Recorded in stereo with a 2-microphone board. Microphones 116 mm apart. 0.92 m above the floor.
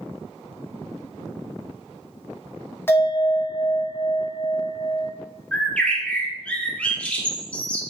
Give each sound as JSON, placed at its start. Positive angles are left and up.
{"t": 2.9, "sound": "a bell", "side_deg": 20, "distance_m": 0.7}
{"t": 5.5, "sound": "a bird", "side_deg": 10, "distance_m": 0.5}